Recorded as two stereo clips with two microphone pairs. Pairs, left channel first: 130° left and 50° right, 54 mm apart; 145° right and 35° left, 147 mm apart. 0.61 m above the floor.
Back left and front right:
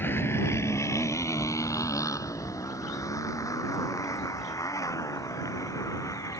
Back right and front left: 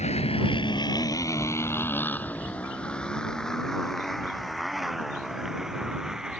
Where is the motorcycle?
Straight behind; by 6.4 s 120° left.